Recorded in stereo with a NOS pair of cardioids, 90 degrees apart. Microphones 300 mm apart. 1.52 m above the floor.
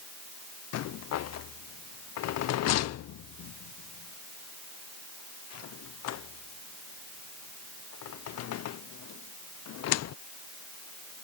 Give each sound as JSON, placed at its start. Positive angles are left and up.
{"t": 0.7, "sound": "a rattle", "azimuth_deg": 60}